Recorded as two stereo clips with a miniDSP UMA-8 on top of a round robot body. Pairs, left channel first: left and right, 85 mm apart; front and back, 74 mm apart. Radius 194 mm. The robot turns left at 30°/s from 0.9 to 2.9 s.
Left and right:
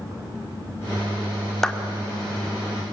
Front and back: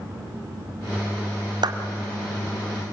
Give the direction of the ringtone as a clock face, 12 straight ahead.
I don't hear a ringtone.